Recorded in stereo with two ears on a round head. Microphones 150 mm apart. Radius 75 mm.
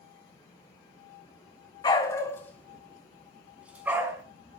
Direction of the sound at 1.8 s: 25° left (ahead or behind).